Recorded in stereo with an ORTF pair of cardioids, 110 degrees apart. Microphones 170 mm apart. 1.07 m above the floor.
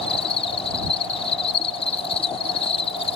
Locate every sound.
0.0 s an insect: 35° left